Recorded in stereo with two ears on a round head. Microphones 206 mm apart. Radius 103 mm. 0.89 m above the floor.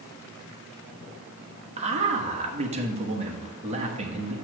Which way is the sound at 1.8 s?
30° right (ahead or behind).